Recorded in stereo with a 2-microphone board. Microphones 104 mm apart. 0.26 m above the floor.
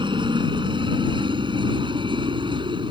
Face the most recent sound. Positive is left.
turn(degrees=-55)  # may be behind; listen again after turning